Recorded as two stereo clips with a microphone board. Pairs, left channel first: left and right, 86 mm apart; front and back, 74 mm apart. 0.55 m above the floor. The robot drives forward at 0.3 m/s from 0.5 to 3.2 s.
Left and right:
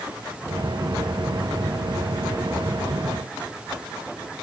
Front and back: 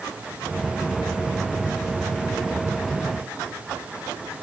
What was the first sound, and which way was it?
Only background noise.